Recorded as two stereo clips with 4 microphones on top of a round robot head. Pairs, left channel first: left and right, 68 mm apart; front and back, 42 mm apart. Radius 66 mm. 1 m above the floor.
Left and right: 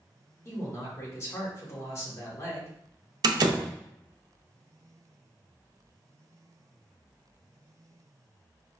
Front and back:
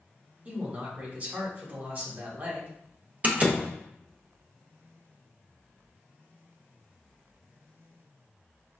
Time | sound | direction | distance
0.5 | a man speaking | 135° left | 1.6 m
3.2 | a door slam | 120° right | 0.5 m